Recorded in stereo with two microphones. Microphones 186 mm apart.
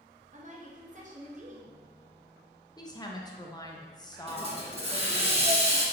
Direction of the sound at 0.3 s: 40° right (ahead or behind).